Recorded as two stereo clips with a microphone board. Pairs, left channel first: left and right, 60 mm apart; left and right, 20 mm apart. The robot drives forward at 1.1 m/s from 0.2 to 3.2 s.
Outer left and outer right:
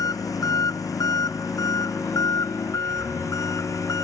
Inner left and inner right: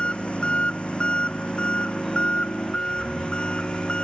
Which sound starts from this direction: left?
An engine running, at 0.0 s.